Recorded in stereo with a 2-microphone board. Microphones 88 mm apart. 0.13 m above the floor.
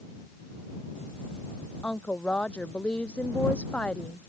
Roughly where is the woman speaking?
Centre.